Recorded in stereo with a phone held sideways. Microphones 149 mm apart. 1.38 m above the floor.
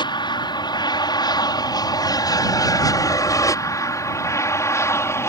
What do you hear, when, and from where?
0.0 s an aircraft: 30° left (ahead or behind); by 5.3 s 15° left (ahead or behind)